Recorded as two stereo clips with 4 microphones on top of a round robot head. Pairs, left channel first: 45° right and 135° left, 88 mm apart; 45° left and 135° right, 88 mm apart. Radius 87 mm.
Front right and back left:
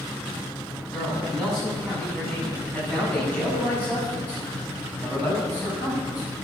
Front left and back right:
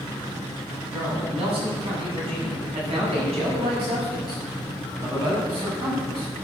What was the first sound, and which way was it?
A man speaking, 125° right.